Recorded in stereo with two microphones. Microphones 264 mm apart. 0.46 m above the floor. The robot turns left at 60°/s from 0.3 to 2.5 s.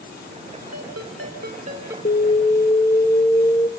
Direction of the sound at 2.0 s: 45° left (ahead or behind).